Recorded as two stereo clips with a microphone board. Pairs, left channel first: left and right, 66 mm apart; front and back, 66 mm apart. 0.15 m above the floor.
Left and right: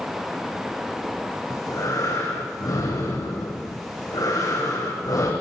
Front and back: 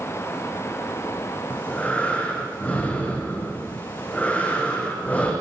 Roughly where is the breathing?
Ahead left.